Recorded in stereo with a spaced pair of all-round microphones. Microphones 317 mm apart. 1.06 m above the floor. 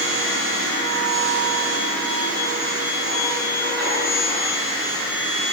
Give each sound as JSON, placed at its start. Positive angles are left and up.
{"t": 0.0, "sound": "a machine running", "side_deg": -30, "distance_m": 6.0}